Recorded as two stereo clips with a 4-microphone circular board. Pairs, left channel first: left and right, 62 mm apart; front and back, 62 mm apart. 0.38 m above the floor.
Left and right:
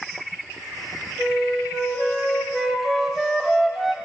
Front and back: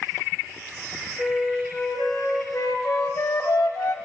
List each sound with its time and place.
1.2 s a flute: 120° left, 3 m
2.5 s a flute: straight ahead, 1.2 m